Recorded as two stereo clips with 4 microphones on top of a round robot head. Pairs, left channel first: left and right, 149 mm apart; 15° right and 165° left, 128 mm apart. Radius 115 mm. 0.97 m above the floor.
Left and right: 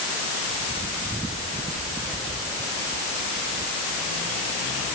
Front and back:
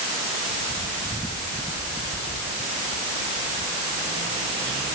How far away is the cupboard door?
No cupboard door in this recording.